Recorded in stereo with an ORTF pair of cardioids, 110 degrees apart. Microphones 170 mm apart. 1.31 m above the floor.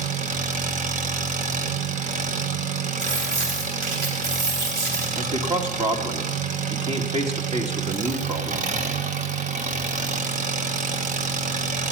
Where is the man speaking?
35° right, 2 m.